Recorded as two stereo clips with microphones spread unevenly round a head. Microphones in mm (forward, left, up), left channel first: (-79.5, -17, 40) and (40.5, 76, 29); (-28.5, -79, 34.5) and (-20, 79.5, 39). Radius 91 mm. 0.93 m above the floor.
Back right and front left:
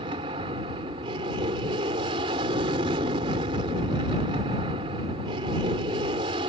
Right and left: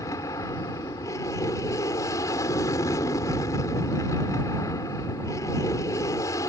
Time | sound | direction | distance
0.0 | an aircraft | 20° right | ?